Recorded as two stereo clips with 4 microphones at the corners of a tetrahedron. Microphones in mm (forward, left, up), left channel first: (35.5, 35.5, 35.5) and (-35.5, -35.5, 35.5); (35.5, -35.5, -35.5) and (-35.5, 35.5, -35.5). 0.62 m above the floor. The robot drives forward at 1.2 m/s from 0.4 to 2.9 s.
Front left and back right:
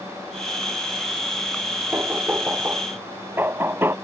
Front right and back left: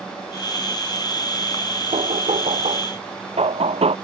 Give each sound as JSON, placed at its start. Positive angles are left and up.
{"t": 1.9, "sound": "knocking", "azimuth_deg": 150}